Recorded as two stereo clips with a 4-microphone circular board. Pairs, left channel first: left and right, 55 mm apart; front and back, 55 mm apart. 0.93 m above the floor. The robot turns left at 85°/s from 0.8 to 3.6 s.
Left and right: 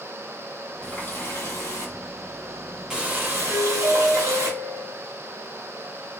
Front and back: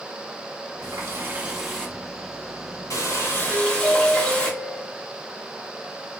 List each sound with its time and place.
0.8 s a running tap: 165° left, 1.4 m; by 4.5 s 70° right, 1.4 m
3.5 s a doorbell: 115° right, 3 m; by 5.0 s 120° right, 3 m